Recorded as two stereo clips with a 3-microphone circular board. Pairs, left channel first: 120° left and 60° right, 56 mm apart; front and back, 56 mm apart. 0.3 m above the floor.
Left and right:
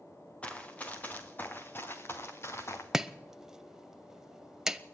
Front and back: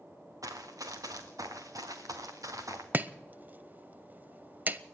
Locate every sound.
0.4 s running footsteps: 170° right, 2.5 m; by 2.8 s 160° left, 3 m
2.9 s chopping: 135° right, 0.7 m